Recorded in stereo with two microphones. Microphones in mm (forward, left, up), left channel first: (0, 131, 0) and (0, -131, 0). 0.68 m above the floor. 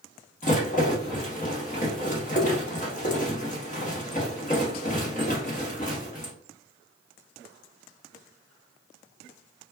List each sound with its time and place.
0.4 s a rattle: 30° left (ahead or behind), 1.0 m